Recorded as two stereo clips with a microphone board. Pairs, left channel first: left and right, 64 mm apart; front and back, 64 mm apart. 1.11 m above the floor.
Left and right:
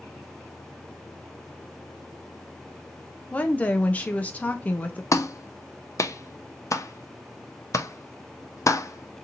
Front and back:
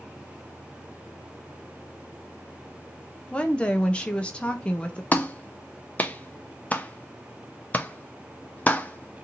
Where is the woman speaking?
50° left, 0.5 m.